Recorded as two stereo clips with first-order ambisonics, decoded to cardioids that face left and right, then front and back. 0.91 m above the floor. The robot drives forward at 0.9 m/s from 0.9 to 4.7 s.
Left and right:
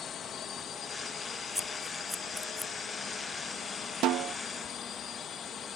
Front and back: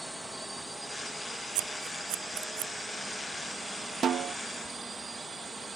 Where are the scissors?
175° left.